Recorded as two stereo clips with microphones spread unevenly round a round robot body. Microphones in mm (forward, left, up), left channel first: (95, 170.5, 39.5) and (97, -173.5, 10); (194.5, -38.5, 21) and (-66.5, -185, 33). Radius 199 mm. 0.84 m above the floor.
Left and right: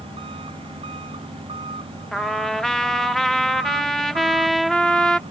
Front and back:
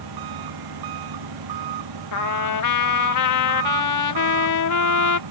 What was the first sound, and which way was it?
An engine running, 170° right.